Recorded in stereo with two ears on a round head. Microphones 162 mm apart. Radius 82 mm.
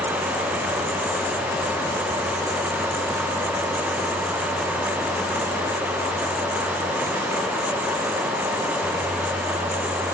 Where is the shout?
I don't hear a shout.